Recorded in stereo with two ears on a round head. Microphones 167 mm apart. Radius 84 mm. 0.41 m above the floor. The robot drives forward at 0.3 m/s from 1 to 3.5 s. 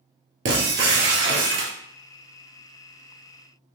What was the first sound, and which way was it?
Breaking glass, 65° right (ahead or behind).